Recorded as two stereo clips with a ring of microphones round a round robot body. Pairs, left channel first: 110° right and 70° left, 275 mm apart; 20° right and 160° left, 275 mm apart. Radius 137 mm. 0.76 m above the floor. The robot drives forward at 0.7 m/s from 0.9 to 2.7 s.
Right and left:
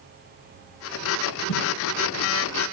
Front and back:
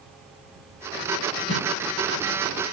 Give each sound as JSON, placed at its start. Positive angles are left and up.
{"t": 1.5, "sound": "a whoosh", "azimuth_deg": -65, "distance_m": 3.5}